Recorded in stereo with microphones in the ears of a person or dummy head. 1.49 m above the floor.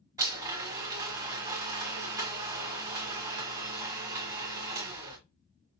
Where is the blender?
20° right (ahead or behind), 1.5 m.